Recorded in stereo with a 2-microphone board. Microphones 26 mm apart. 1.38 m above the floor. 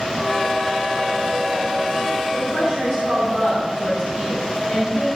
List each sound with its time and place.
2.3 s a woman speaking: 70° right (ahead or behind), 4.5 m